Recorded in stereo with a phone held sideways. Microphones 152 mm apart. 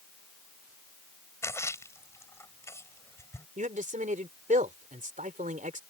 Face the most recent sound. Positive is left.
turn(degrees=-55)  # may be behind; listen again after turning